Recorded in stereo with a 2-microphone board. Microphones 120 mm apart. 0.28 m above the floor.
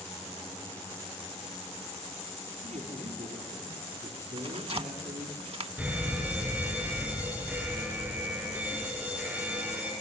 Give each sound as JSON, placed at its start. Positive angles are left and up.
{"t": 2.6, "sound": "a man speaking", "side_deg": -75, "distance_m": 5.5}
{"t": 4.4, "sound": "tearing paper", "side_deg": -55, "distance_m": 0.6}
{"t": 5.8, "sound": "a fire alarm", "side_deg": -10, "distance_m": 6.0}